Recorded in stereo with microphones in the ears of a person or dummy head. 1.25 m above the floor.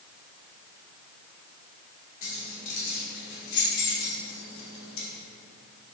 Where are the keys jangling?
45° left (ahead or behind), 3 m; by 5.1 s 75° left (ahead or behind), 3 m.